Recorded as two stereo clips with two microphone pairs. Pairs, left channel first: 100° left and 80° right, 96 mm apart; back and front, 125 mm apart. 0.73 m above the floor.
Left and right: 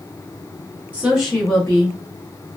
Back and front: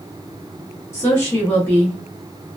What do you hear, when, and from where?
0.9 s a woman speaking: 135° right, 1.0 m; by 2.0 s 110° left, 1.0 m